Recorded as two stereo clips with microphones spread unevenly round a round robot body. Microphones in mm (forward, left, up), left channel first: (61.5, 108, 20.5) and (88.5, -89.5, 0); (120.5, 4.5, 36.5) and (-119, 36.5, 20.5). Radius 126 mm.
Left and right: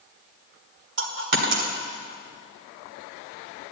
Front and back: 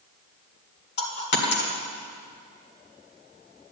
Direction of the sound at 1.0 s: 60° right.